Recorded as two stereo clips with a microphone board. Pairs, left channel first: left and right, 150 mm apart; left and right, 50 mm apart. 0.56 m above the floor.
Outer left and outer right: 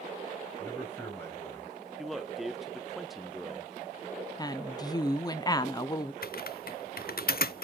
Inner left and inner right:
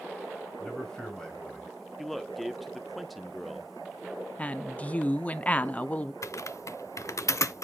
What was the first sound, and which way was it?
A man speaking, 15° left (ahead or behind).